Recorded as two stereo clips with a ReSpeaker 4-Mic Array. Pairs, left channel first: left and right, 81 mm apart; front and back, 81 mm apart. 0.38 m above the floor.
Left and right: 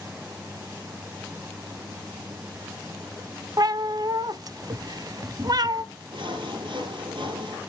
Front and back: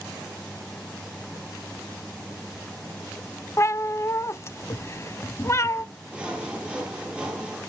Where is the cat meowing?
55° right, 0.5 m.